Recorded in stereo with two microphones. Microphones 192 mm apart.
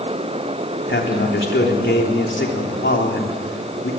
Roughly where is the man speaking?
Left.